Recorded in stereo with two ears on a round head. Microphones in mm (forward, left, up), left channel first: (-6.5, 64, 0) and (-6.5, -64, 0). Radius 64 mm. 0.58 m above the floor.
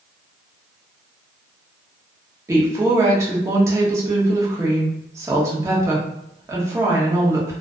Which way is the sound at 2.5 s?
20° right (ahead or behind).